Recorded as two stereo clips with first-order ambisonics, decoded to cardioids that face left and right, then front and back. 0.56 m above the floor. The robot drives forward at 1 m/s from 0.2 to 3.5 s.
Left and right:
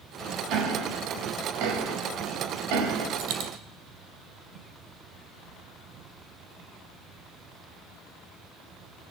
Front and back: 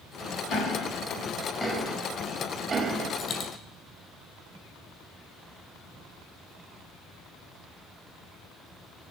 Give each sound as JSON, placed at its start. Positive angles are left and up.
{"t": 0.5, "sound": "ticking", "azimuth_deg": -50, "distance_m": 3.0}
{"t": 3.2, "sound": "a dropped coin", "azimuth_deg": -60, "distance_m": 4.5}